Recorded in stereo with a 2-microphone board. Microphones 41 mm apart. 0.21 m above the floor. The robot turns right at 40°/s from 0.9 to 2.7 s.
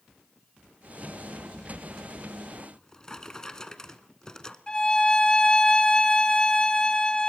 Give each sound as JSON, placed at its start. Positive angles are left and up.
{"t": 2.6, "sound": "a drawer", "side_deg": 15, "distance_m": 1.0}
{"t": 4.7, "sound": "a violin", "side_deg": 20, "distance_m": 1.1}